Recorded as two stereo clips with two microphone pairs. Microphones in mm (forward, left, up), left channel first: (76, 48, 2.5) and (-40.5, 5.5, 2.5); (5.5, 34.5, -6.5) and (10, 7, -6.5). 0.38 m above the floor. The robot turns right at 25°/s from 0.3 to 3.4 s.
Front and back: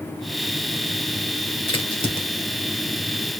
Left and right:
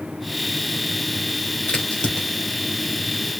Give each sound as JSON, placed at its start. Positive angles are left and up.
{"t": 1.7, "sound": "a crack", "azimuth_deg": 50, "distance_m": 2.5}